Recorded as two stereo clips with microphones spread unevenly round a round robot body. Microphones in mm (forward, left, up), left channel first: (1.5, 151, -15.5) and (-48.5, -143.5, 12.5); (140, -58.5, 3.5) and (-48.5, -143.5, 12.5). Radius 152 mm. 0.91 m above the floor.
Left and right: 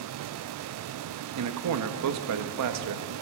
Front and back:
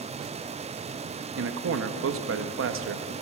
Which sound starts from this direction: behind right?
A man speaking, at 1.4 s.